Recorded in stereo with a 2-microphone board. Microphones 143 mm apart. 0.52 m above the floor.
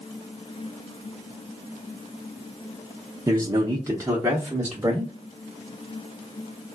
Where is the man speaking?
25° right (ahead or behind), 0.7 m; by 5.1 s 10° right (ahead or behind), 1.1 m.